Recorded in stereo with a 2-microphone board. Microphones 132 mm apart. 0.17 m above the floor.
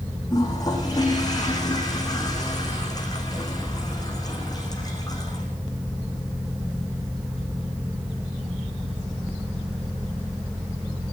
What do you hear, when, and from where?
0.3 s a toilet flushing: 30° left (ahead or behind), 8.5 m